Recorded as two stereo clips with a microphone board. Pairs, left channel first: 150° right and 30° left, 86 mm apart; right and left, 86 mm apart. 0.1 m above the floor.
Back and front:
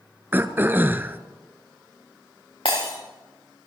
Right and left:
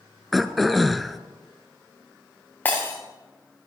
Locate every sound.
0.3 s throat clearing: 5° right, 0.8 m
2.6 s breaking glass: 160° right, 5 m